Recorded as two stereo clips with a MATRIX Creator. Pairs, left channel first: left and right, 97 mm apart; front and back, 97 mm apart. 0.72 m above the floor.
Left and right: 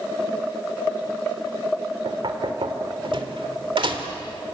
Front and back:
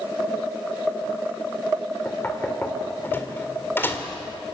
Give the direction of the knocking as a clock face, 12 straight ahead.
2 o'clock.